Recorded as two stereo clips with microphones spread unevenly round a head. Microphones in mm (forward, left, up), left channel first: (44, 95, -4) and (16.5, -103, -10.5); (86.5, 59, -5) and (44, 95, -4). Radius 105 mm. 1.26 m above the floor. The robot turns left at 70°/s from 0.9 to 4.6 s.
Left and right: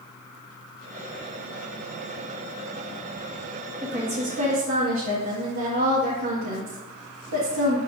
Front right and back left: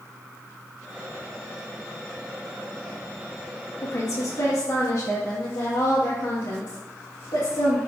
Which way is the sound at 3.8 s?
20° right.